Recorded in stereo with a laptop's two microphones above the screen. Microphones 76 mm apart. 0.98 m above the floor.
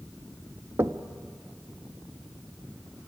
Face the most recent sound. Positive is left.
turn(degrees=-35)  # may be behind; listen again after turning